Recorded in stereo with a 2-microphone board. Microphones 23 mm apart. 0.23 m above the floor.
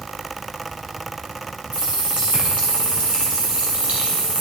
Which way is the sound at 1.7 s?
65° right (ahead or behind).